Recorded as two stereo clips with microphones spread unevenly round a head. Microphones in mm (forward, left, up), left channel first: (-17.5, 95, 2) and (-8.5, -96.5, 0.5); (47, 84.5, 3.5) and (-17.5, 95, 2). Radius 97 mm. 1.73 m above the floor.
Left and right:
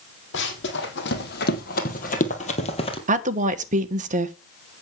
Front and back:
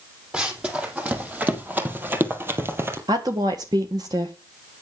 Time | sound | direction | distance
0.3 | running footsteps | 100° left | 3.5 m
3.1 | a woman speaking | 140° right | 1.3 m